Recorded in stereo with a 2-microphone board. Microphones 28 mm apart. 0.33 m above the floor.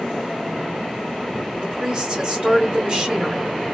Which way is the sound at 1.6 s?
20° right (ahead or behind).